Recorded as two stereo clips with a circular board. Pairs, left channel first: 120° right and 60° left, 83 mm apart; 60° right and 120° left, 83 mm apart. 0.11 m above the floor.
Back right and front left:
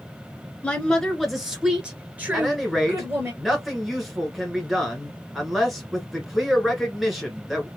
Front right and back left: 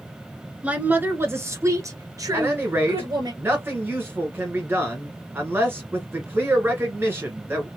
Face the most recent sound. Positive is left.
turn(degrees=150)